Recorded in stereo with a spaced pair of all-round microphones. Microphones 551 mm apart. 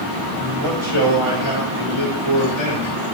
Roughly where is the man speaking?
Right.